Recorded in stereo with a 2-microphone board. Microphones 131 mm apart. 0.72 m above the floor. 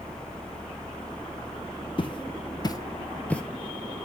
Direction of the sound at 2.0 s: 40° left (ahead or behind).